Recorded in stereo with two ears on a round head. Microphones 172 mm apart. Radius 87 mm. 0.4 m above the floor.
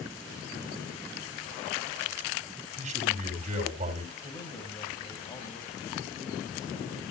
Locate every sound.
2.8 s a man speaking: 40° right (ahead or behind), 3.5 m
4.2 s a man speaking: 20° left (ahead or behind), 3 m